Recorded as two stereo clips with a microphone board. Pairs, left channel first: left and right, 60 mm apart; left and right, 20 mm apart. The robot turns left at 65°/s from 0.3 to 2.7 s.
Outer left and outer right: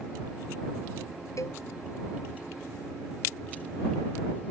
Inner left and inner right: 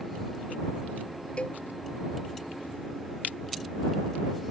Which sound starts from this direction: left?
A cowbell, at 1.4 s.